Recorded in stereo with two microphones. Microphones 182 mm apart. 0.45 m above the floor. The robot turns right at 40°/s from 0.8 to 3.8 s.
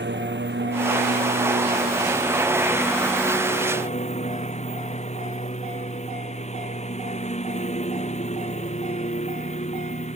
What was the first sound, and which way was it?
A lawn mower, 80° right.